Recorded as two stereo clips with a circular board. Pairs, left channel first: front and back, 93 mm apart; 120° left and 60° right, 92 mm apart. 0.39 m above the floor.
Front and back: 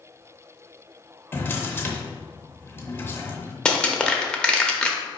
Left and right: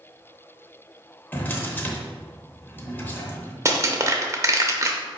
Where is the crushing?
70° right, 0.6 m.